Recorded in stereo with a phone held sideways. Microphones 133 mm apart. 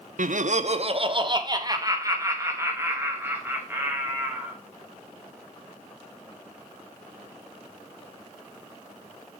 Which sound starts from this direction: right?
Laughter, at 0.2 s.